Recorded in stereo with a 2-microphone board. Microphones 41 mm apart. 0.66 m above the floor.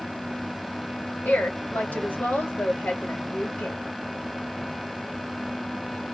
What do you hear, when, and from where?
1.2 s a woman speaking: 35° left (ahead or behind), 1.3 m